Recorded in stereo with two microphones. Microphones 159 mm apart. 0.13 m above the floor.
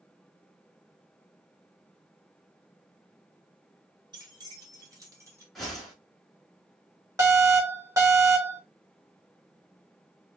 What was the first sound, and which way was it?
Keys jangling, 25° right (ahead or behind).